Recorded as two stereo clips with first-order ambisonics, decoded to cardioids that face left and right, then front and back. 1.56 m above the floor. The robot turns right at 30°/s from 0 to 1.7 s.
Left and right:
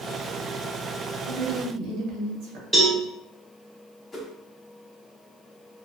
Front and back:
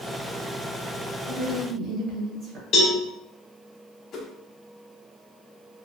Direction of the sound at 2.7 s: Straight ahead.